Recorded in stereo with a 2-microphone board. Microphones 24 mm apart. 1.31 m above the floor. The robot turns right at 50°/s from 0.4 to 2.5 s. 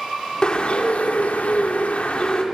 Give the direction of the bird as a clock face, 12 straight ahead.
11 o'clock.